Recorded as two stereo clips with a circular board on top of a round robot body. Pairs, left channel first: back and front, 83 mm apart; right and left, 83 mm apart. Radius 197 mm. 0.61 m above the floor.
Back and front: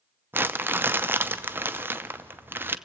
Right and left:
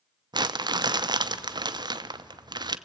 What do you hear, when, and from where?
0.3 s crumpling: 65° left, 0.8 m